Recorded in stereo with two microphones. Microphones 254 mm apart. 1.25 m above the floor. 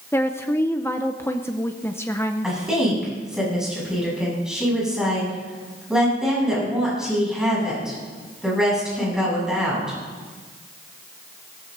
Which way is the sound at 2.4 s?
Centre (ahead or behind).